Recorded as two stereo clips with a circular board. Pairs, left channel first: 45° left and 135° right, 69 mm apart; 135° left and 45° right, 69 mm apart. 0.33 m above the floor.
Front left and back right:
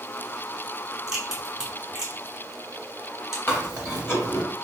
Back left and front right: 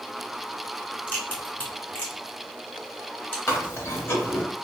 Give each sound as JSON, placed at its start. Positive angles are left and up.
{"t": 1.1, "sound": "a crack", "azimuth_deg": 160, "distance_m": 1.4}
{"t": 3.5, "sound": "chewing", "azimuth_deg": 90, "distance_m": 0.9}